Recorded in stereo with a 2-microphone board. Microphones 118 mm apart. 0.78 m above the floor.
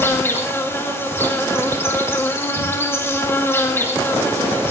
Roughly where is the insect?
Left.